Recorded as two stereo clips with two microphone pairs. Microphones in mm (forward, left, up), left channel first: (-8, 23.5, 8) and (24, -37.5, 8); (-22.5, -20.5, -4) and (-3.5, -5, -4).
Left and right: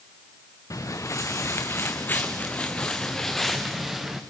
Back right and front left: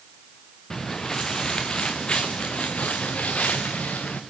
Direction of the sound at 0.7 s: 155° left.